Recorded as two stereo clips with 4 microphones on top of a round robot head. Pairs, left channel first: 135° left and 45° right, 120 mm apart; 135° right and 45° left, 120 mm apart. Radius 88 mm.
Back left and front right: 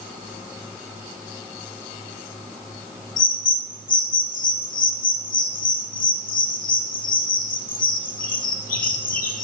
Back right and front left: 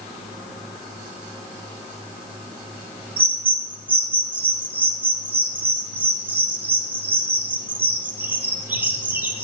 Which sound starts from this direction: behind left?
A bird, at 3.2 s.